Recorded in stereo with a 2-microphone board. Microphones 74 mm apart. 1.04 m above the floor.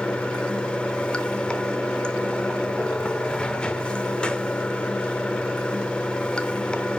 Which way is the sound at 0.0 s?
15° left (ahead or behind).